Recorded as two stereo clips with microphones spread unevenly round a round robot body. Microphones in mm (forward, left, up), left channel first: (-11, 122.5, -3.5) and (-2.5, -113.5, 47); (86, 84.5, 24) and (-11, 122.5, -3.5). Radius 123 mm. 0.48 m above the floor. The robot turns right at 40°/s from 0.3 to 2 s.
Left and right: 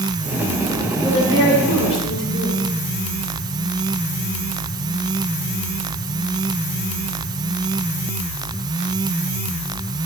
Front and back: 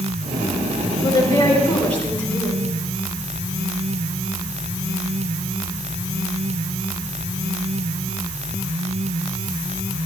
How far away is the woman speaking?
About 7.5 m.